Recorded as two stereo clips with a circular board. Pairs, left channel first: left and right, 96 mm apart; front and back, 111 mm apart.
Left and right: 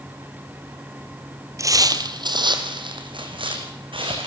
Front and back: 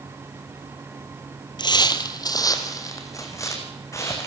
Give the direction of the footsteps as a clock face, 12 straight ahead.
1 o'clock.